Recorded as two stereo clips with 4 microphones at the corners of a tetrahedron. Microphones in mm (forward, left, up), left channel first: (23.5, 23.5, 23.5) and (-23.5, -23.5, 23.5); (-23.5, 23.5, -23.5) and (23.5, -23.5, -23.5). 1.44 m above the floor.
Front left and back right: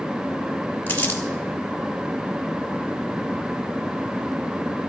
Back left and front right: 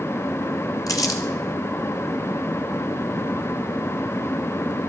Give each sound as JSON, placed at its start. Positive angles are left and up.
{"t": 0.9, "sound": "crumpling", "azimuth_deg": 110, "distance_m": 1.7}